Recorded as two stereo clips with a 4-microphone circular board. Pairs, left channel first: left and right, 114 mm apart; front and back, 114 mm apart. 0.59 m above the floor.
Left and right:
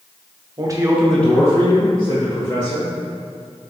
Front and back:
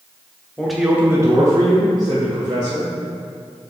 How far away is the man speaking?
About 0.7 m.